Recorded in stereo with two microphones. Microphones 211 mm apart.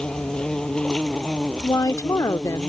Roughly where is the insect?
Centre.